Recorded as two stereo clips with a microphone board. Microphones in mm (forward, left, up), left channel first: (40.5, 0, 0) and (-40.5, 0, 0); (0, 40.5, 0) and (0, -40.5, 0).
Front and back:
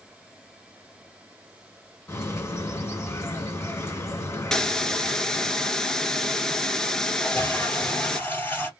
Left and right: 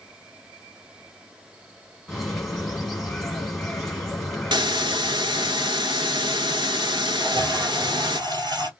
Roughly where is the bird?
Ahead.